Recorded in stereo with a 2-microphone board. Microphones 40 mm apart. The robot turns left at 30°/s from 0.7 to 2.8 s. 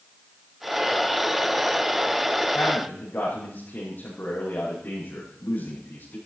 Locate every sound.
2.5 s a man speaking: 60° left (ahead or behind), 6.5 m; by 6.2 s 50° left (ahead or behind), 6.5 m